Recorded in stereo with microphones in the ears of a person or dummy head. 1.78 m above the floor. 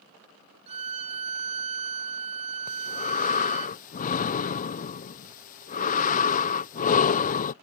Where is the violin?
35° right (ahead or behind).